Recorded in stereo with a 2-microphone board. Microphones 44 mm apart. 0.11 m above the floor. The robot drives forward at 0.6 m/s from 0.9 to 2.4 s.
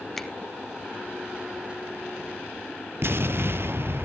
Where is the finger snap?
5° left (ahead or behind), 0.9 m.